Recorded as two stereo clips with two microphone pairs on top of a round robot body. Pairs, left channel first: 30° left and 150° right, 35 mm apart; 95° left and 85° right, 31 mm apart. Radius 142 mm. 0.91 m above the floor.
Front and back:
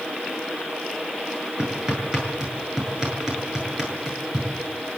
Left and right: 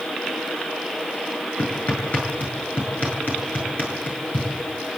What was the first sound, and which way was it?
Hammering, 135° left.